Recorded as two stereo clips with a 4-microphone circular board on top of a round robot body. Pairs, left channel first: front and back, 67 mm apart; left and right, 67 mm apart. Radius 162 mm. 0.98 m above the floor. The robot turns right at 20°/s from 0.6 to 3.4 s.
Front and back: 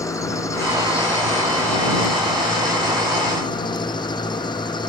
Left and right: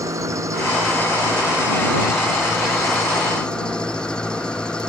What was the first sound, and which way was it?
An engine running, 45° right.